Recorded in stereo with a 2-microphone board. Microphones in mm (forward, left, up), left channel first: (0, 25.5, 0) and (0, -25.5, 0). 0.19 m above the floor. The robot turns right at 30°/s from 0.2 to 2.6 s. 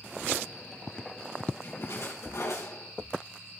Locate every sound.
1.6 s a splash: 55° left (ahead or behind), 4 m; by 2.9 s 75° left (ahead or behind), 4 m